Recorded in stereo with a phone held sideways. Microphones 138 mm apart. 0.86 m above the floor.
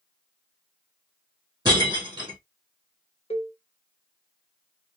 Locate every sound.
1.6 s breaking glass: 30° right (ahead or behind), 2.5 m
3.3 s a cowbell: 45° left (ahead or behind), 0.9 m